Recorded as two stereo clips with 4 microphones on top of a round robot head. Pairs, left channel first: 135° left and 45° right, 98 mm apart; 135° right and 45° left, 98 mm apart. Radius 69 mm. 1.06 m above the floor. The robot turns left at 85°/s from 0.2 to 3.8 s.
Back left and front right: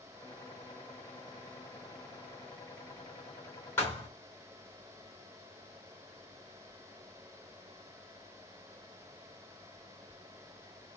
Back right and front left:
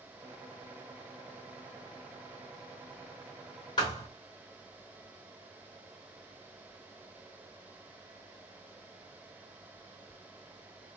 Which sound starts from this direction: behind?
A thud, at 3.8 s.